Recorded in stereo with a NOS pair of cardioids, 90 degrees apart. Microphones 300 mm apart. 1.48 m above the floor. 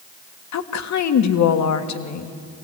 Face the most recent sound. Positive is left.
turn(degrees=60)